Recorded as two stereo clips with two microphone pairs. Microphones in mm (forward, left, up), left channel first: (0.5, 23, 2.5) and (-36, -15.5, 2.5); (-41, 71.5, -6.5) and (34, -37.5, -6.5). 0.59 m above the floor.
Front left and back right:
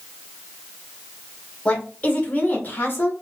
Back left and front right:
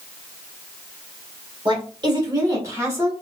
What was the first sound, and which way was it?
A woman speaking, 15° right.